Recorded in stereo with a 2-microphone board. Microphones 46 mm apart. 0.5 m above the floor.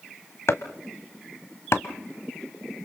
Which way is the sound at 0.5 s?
75° left (ahead or behind).